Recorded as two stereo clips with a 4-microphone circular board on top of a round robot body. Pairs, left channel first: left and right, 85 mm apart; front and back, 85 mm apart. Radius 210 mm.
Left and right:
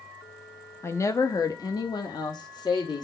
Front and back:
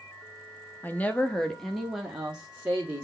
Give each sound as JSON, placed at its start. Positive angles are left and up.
{"t": 0.8, "sound": "a woman speaking", "azimuth_deg": 55, "distance_m": 1.1}